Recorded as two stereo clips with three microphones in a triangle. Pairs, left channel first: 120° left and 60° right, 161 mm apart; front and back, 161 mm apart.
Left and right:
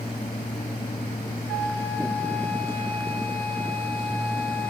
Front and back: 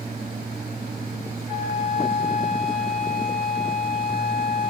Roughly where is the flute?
Ahead left.